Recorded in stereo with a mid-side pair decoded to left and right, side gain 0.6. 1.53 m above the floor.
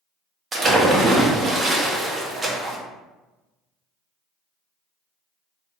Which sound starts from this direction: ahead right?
A splash, at 0.5 s.